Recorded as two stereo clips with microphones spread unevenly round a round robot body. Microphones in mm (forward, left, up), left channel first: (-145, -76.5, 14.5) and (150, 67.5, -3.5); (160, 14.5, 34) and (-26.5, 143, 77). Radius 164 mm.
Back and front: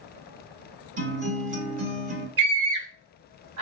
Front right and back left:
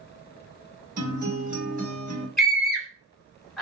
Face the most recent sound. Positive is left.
turn(degrees=50)